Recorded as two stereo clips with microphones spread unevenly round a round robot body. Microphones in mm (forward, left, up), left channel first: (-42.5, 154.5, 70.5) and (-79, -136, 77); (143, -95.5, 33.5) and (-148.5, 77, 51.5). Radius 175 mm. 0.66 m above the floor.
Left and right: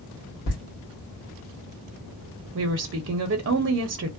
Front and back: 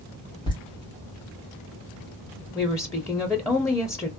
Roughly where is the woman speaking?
Right.